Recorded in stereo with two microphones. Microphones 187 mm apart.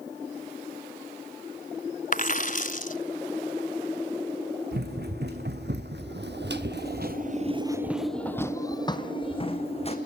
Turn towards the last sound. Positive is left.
turn(degrees=35)  # may be behind; listen again after turning